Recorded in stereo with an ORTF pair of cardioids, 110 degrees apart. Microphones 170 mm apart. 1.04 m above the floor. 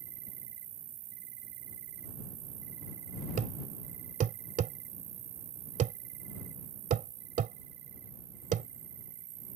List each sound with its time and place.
0.0 s an insect: 65° right
3.4 s a thud: 50° right